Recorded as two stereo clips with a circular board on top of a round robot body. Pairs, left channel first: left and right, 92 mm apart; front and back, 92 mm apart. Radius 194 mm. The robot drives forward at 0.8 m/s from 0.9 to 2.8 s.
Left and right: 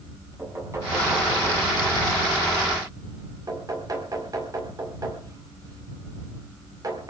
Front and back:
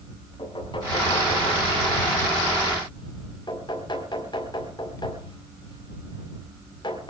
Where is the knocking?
30° right, 6.5 m; by 7.1 s 40° right, 5 m.